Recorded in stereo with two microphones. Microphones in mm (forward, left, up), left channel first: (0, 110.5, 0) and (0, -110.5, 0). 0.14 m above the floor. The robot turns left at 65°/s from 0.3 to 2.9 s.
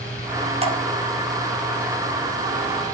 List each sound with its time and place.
0.6 s dripping: 30° right (ahead or behind), 0.7 m